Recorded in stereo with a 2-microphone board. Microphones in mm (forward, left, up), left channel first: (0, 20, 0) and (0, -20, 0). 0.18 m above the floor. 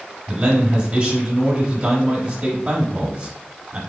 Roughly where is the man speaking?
Right.